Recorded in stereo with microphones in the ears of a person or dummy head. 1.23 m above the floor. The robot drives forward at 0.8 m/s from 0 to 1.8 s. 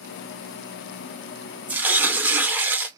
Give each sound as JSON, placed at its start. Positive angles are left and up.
{"t": 1.7, "sound": "tearing paper", "side_deg": -10, "distance_m": 0.5}